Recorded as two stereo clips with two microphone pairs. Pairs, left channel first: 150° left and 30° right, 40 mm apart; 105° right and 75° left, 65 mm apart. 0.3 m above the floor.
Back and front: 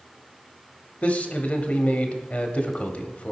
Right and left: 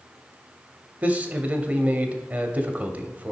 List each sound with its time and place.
1.0 s a man speaking: 125° left, 1.1 m